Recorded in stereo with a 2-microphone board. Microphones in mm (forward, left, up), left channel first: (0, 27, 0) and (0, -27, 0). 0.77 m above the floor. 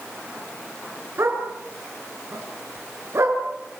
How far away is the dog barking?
About 5.5 m.